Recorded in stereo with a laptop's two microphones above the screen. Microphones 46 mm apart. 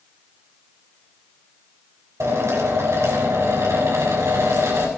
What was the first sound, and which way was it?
A drill, 80° right.